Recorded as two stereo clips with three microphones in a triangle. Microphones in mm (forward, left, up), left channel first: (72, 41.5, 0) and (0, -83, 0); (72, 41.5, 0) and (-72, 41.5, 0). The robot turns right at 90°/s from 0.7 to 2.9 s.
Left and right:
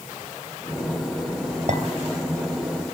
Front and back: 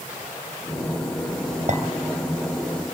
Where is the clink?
145° right, 2.5 m; by 1.8 s 135° right, 2.5 m.